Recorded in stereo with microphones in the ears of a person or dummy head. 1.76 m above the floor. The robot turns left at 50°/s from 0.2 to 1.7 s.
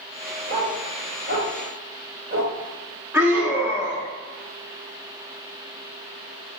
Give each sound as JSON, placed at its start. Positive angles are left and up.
{"t": 0.5, "sound": "a dog barking", "side_deg": -50, "distance_m": 2.5}
{"t": 3.1, "sound": "a scream", "side_deg": -15, "distance_m": 0.8}